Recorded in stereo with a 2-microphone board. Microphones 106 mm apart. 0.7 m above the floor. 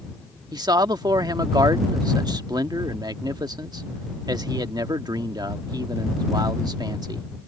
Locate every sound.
0.5 s a man speaking: 45° right (ahead or behind)